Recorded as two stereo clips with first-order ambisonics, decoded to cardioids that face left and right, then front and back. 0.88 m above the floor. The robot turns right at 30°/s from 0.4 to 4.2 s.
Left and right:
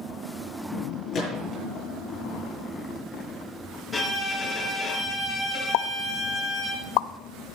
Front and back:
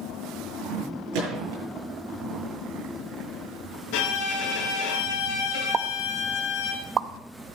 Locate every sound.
1.1 s a gunshot: 150° left, 7.5 m; by 1.6 s 165° left, 7.5 m
3.9 s a violin: straight ahead, 4 m; by 6.7 s 10° left, 4 m
5.7 s a pop: 110° left, 0.5 m